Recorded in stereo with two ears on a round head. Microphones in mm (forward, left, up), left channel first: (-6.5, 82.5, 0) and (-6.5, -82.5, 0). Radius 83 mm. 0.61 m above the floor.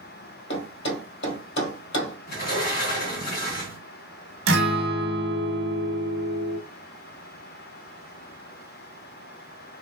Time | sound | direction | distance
0.5 | a thud | 65° left (ahead or behind) | 1.7 m
2.3 | a sliding door | 50° left (ahead or behind) | 1.4 m
4.5 | a guitar | 60° right (ahead or behind) | 0.7 m